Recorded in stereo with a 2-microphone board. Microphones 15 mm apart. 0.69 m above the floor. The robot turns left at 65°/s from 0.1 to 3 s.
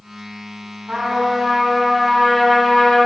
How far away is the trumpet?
About 3 m.